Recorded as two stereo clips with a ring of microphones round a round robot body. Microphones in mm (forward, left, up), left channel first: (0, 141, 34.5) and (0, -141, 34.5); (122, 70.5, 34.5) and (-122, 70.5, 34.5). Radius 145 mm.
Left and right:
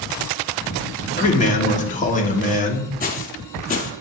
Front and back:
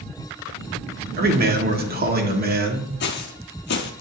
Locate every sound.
1.2 s a man speaking: 145° left, 1.4 m
3.0 s footsteps: 35° left, 0.8 m